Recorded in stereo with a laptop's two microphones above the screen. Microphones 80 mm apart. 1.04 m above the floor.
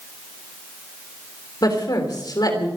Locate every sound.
1.6 s a woman speaking: 55° left (ahead or behind), 3.5 m